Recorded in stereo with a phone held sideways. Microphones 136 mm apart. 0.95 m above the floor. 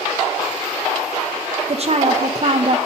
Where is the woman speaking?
50° right (ahead or behind), 0.5 m.